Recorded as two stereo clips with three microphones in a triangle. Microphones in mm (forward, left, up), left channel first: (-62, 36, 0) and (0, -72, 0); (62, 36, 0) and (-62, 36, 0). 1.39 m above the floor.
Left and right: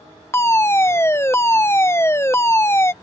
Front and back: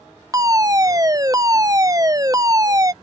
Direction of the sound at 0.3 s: 165° left.